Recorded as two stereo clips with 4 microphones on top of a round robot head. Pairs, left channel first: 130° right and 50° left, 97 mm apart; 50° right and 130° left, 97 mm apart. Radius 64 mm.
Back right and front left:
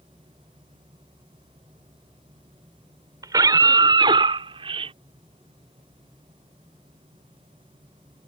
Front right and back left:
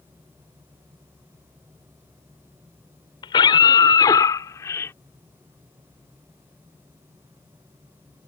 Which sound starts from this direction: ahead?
A scream, at 3.2 s.